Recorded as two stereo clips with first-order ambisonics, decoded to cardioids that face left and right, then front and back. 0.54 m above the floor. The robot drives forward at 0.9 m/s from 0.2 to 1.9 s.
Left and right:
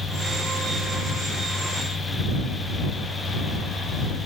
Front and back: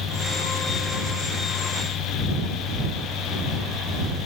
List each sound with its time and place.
Only background noise.